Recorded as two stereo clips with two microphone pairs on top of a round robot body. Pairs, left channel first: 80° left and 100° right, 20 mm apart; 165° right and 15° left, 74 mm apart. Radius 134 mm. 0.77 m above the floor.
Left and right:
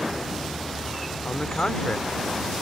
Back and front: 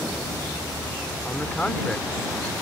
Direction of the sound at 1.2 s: 115° left.